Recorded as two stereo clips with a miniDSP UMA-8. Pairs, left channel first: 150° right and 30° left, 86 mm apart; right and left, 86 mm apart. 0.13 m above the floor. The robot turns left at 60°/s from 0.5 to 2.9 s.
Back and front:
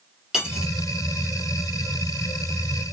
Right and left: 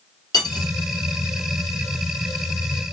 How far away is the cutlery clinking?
About 1.9 m.